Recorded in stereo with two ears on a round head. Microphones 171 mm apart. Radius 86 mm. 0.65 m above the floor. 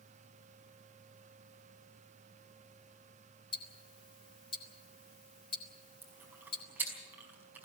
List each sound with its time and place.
3.5 s ticking: 30° left (ahead or behind), 2.5 m
6.0 s chewing: 10° right (ahead or behind), 5 m